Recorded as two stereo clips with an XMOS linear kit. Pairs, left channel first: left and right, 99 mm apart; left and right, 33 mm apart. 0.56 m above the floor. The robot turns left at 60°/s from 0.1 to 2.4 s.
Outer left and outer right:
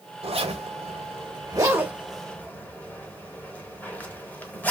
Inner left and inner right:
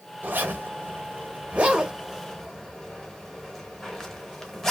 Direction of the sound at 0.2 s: 65° right (ahead or behind).